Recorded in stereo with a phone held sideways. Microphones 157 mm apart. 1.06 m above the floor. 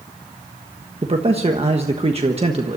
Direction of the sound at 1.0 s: 40° right (ahead or behind).